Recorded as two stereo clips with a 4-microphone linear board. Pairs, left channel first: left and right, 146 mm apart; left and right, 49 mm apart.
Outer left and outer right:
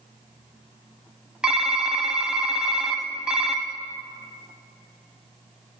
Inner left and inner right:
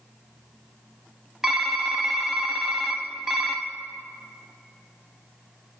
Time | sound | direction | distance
1.4 | typing on a keyboard | 5° right (ahead or behind) | 0.9 m